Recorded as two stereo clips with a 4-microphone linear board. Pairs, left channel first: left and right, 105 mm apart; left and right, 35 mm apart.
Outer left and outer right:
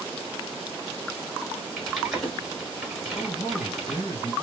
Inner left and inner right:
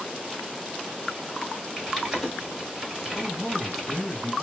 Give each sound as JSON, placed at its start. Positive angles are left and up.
{"t": 1.8, "sound": "typing on a keyboard", "side_deg": -5, "distance_m": 1.6}
{"t": 3.1, "sound": "a man speaking", "side_deg": 30, "distance_m": 1.9}